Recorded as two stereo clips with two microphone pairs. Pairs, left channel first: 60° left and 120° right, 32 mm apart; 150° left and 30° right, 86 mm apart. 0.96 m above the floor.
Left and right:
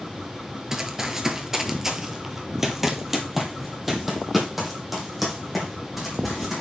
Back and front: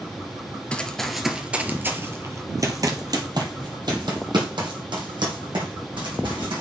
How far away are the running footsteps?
About 0.9 m.